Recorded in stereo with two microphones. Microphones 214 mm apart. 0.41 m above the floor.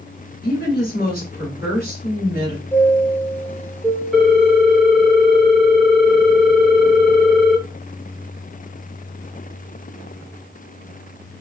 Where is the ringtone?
Centre (ahead or behind), 0.7 m.